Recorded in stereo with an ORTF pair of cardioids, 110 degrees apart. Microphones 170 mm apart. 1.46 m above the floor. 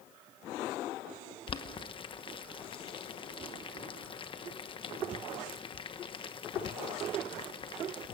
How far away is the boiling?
About 1.0 m.